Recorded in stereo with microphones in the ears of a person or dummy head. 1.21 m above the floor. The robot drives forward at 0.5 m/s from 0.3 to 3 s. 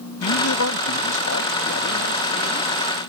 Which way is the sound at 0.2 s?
80° left.